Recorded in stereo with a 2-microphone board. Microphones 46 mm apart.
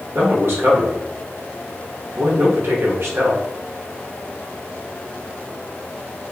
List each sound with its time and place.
0.1 s a man speaking: 60° right (ahead or behind), 0.9 m